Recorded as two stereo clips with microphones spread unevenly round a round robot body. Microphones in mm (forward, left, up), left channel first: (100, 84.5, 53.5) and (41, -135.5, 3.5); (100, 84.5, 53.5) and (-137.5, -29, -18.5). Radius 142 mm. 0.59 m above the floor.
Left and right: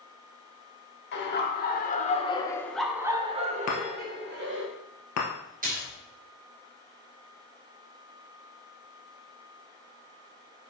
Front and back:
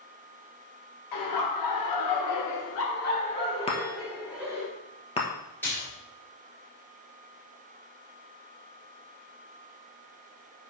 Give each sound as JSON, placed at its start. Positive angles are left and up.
{"t": 1.1, "sound": "laughter", "azimuth_deg": 35, "distance_m": 2.5}
{"t": 3.7, "sound": "a chime", "azimuth_deg": 90, "distance_m": 2.0}
{"t": 5.6, "sound": "a splash", "azimuth_deg": -65, "distance_m": 3.0}